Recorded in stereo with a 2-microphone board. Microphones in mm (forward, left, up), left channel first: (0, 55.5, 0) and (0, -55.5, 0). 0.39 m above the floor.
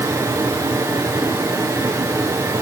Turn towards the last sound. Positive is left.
No sound to turn to.